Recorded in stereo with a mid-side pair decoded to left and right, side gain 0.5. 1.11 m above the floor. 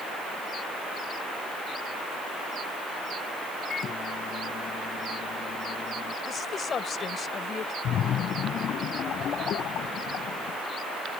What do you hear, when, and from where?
3.7 s a microwave: 50° left
6.2 s a woman speaking: 45° left
7.8 s a splash: 60° left